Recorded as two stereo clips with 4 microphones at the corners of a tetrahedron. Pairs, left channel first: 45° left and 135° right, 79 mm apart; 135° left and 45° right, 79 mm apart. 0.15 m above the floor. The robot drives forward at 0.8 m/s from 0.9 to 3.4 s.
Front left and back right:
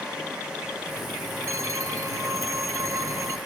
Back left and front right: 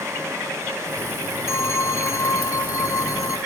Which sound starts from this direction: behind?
A phone ringing, at 1.5 s.